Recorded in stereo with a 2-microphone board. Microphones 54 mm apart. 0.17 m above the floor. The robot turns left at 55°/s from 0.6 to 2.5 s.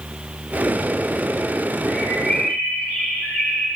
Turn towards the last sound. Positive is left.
turn(degrees=-20)